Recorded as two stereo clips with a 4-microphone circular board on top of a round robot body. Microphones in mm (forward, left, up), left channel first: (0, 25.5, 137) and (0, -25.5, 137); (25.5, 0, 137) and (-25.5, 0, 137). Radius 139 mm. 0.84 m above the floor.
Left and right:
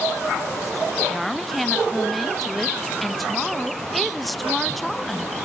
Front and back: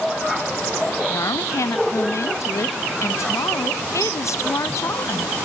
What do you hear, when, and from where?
1.1 s a woman speaking: straight ahead, 0.8 m